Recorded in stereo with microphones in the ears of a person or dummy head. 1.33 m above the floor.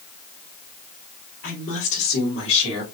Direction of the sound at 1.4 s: 45° left (ahead or behind).